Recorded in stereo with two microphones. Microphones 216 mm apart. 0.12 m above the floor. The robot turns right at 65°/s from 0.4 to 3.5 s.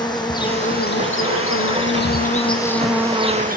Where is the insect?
20° left, 1.3 m; by 3.6 s 140° right, 1.3 m.